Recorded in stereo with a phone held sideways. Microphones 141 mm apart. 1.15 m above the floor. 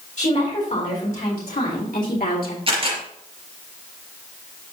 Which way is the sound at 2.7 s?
35° right (ahead or behind).